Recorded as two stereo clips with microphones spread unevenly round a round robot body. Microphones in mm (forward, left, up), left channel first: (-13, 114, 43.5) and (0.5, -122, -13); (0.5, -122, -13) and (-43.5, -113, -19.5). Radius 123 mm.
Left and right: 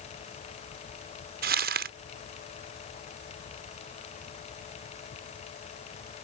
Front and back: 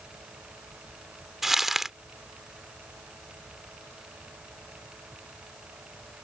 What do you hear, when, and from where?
1.4 s crumpling: 110° right